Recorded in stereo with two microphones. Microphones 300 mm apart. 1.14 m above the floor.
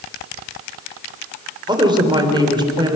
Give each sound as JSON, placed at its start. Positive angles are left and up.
{"t": 1.7, "sound": "a woman speaking", "side_deg": -15, "distance_m": 3.5}